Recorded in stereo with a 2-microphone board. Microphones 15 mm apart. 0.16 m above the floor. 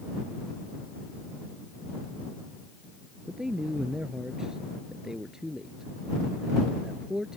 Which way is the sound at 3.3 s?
40° right (ahead or behind).